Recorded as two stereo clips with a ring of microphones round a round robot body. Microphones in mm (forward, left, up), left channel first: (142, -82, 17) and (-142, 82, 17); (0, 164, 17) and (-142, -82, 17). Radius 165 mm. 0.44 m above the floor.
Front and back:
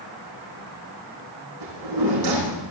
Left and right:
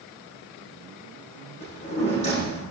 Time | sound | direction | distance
1.6 | a drawer | 125° left | 8 m